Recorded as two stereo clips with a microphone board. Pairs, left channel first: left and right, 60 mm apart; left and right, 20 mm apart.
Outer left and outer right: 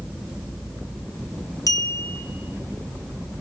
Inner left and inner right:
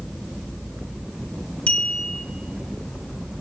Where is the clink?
70° left (ahead or behind), 1.0 m.